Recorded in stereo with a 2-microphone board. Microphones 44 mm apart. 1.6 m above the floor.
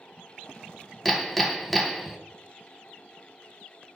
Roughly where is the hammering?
Centre.